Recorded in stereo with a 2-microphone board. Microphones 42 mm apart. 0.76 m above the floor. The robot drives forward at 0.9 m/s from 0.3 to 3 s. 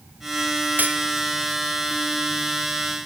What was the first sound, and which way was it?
Cutlery clinking, 45° right (ahead or behind).